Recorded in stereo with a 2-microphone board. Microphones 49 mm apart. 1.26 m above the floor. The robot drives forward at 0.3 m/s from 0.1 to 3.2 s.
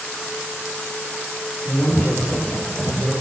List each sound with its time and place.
1.6 s a man speaking: 75° left (ahead or behind), 4.5 m; by 3.1 s 80° left, 4.5 m